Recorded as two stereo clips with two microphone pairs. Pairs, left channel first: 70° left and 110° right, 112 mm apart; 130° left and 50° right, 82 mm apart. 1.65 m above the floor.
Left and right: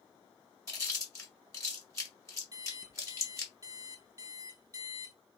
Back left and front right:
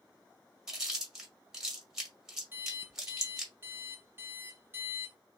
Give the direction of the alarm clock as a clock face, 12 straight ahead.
3 o'clock.